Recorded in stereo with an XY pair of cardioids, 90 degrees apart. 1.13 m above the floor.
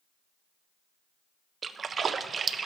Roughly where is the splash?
Ahead right.